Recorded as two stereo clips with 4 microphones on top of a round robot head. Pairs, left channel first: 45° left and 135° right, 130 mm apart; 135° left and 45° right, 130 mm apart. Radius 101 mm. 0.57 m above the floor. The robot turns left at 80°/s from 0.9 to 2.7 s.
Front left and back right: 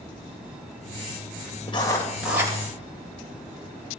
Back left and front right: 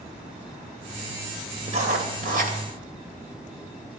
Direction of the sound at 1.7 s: 5° right.